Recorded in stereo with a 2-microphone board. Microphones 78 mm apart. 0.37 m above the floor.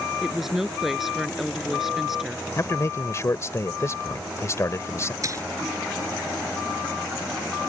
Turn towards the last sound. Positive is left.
turn(degrees=-40)  # may be behind; listen again after turning